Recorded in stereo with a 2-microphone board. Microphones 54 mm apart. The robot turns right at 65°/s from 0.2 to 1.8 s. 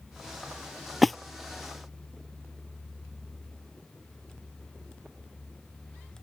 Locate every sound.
1.0 s a splash: centre (ahead or behind); by 1.1 s 5° left (ahead or behind)